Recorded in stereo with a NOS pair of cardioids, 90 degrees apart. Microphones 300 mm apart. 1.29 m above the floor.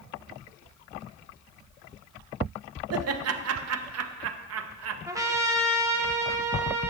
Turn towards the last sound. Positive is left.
turn(degrees=-10)